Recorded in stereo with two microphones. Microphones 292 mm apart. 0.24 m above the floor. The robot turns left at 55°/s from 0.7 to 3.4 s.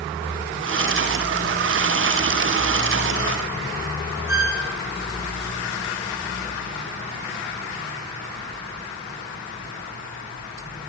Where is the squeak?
40° left (ahead or behind), 1.4 m.